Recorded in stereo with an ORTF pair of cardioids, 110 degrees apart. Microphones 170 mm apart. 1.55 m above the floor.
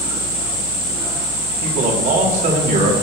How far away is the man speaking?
About 4.5 m.